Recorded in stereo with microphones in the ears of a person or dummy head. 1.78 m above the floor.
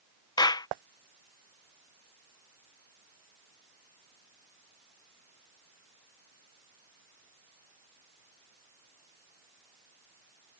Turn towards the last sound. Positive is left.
turn(degrees=25)  # may be behind; listen again after turning